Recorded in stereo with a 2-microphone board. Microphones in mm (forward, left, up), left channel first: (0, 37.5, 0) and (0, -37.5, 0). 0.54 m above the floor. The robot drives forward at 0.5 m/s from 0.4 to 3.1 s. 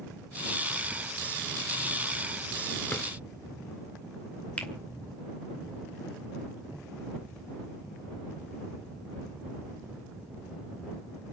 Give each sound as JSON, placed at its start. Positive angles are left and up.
{"t": 2.9, "sound": "a drawer", "side_deg": 25, "distance_m": 1.8}
{"t": 4.6, "sound": "a finger snap", "side_deg": 20, "distance_m": 2.0}